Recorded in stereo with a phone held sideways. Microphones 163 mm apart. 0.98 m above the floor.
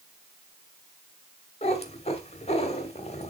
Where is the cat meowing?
40° left (ahead or behind), 1.3 m.